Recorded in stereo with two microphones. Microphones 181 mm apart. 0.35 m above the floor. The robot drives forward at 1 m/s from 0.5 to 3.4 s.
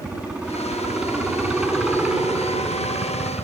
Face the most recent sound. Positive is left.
turn(degrees=-5)  # may be behind; listen again after turning